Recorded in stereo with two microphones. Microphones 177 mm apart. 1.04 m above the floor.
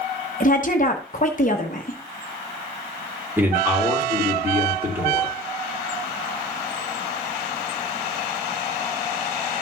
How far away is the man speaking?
About 1.9 m.